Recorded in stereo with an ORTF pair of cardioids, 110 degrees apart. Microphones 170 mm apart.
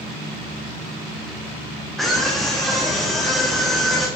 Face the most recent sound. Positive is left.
turn(degrees=0)